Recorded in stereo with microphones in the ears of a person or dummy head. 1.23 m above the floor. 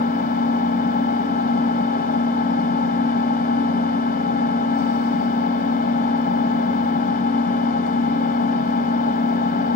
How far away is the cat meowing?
No cat meowing in this recording.